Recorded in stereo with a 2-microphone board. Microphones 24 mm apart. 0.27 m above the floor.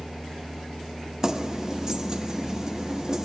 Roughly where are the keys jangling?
Right.